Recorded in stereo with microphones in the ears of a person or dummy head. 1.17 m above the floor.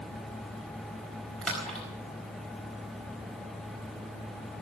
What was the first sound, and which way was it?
A splash, centre (ahead or behind).